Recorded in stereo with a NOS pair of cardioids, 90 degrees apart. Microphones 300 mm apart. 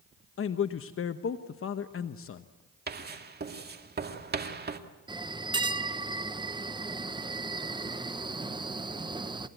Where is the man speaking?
45° left, 1.0 m.